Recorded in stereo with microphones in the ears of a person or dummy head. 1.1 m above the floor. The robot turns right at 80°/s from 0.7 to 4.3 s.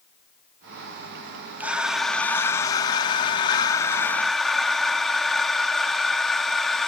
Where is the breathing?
10° right (ahead or behind), 0.5 m; by 6.9 s centre (ahead or behind), 0.5 m.